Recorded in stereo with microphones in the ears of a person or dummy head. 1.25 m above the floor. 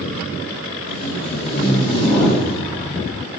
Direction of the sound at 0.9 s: 20° left (ahead or behind).